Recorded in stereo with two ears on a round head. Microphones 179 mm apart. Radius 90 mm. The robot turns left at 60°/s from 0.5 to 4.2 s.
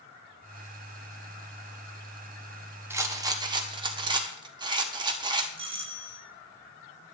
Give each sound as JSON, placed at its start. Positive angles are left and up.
{"t": 2.9, "sound": "a rattle", "side_deg": -10, "distance_m": 1.1}
{"t": 5.6, "sound": "a doorbell", "side_deg": -30, "distance_m": 1.5}